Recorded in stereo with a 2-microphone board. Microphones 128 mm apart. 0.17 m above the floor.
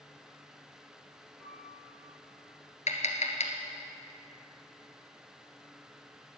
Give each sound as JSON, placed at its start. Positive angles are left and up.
{"t": 1.4, "sound": "a piano", "side_deg": -60, "distance_m": 4.5}
{"t": 2.9, "sound": "tapping", "side_deg": 65, "distance_m": 1.3}